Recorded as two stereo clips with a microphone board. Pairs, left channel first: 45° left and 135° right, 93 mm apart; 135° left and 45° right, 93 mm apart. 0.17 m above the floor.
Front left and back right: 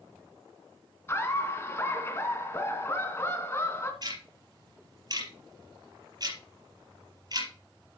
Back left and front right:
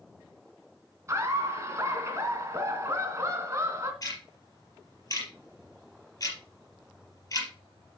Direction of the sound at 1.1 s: 5° right.